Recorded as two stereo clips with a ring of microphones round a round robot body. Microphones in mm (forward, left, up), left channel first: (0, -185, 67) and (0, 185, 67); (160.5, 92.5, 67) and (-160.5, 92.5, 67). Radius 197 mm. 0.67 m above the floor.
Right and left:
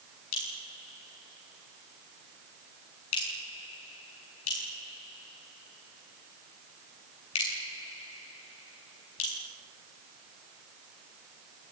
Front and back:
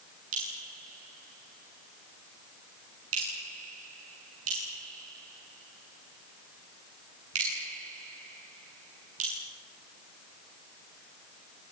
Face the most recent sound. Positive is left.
turn(degrees=-125)